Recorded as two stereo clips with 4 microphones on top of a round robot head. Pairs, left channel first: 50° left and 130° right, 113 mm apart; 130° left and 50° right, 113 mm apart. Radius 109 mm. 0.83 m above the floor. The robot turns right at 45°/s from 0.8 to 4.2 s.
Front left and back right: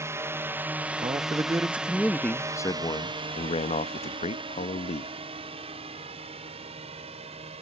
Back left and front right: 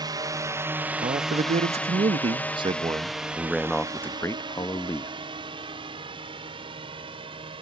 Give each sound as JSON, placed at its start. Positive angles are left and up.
{"t": 0.0, "sound": "a drone", "azimuth_deg": -75}
{"t": 1.0, "sound": "a man speaking", "azimuth_deg": -80}